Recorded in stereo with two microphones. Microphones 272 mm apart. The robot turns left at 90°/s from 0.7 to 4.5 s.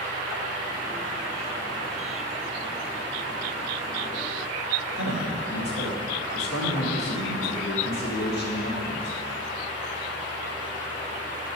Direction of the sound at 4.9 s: 70° left (ahead or behind).